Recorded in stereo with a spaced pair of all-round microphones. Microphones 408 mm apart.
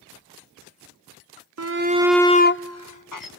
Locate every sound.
1.6 s a shout: 40° right (ahead or behind), 0.6 m; by 3.3 s 55° left (ahead or behind), 1.0 m